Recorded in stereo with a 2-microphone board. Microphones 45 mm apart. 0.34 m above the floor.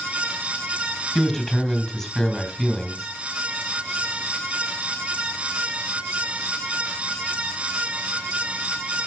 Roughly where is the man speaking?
Centre.